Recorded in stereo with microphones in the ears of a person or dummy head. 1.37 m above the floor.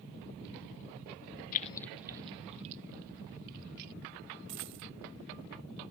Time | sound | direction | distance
1.5 | keys jangling | 45° left (ahead or behind) | ?
4.5 | a dropped coin | 30° right (ahead or behind) | ?